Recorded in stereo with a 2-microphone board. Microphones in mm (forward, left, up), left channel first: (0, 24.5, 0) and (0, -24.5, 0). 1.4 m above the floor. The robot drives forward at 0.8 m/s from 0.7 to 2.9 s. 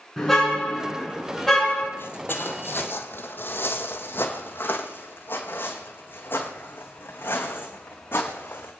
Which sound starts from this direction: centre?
A car horn, at 0.2 s.